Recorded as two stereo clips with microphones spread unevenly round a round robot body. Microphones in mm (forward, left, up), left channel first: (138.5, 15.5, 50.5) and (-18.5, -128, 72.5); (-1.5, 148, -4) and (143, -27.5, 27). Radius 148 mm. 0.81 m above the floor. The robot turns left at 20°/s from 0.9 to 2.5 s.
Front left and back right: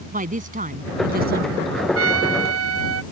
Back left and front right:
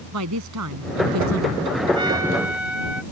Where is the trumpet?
125° right; by 3.0 s 135° right.